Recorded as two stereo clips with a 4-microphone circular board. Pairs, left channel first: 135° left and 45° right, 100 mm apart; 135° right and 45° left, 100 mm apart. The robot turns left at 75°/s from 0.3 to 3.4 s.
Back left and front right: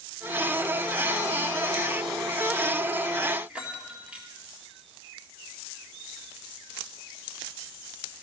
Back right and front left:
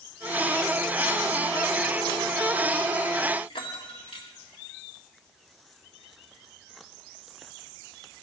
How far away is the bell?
About 1.7 m.